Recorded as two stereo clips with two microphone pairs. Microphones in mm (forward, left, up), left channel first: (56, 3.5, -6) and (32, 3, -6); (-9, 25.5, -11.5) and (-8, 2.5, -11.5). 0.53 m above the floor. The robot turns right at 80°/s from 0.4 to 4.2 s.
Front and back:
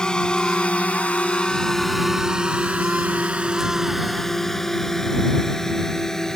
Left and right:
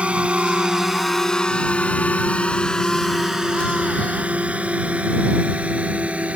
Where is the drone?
55° right; by 6.4 s 70° right.